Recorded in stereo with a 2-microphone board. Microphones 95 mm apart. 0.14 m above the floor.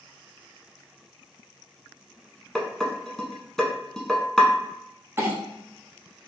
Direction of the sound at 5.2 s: 25° right (ahead or behind).